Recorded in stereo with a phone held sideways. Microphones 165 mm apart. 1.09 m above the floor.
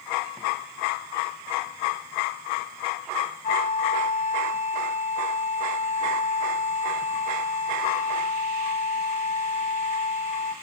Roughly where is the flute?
Left.